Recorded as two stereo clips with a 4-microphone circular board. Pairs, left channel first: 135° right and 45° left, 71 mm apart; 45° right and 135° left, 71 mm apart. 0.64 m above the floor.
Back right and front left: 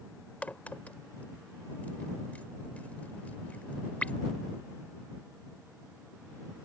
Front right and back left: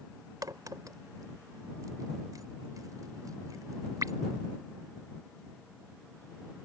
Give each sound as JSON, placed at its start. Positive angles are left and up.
{"t": 0.4, "sound": "a crack", "azimuth_deg": 155}